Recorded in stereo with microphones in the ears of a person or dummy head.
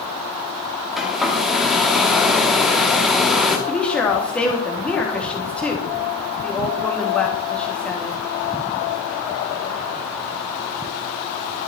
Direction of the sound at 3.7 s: 10° left (ahead or behind).